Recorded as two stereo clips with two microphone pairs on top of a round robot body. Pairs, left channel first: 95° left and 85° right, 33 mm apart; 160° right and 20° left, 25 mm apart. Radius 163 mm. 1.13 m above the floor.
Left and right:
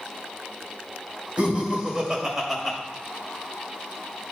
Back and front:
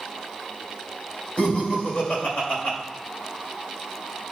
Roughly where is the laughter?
Behind right.